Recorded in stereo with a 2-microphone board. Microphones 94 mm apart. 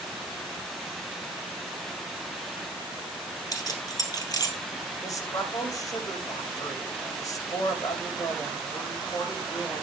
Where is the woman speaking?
35° left (ahead or behind), 6 m.